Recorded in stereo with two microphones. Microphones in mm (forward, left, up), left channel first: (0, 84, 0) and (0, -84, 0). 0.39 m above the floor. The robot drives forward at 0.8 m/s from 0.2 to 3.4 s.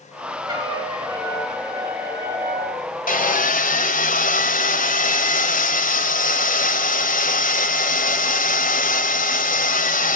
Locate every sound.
0.5 s a trumpet: 25° right (ahead or behind), 5.5 m; by 2.8 s 15° right (ahead or behind), 7 m
3.1 s sawing: 55° left (ahead or behind), 2 m